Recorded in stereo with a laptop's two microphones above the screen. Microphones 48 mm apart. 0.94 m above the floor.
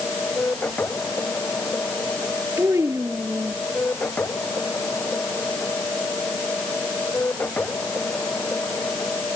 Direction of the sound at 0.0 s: 40° left (ahead or behind).